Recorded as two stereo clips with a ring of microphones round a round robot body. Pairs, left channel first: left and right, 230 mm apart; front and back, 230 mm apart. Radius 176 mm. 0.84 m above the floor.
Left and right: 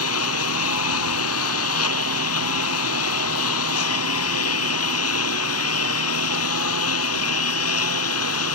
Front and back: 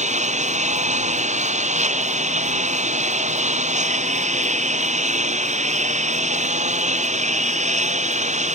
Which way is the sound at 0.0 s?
125° left.